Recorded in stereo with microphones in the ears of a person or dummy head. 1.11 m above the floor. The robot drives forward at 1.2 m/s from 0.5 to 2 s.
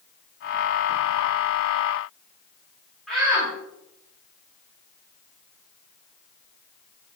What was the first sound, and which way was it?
A shout, 5° right (ahead or behind).